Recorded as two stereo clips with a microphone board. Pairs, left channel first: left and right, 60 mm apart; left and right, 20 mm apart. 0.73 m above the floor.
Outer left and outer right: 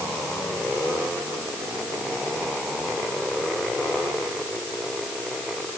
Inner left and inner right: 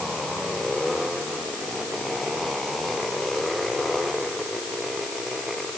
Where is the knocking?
No knocking in this recording.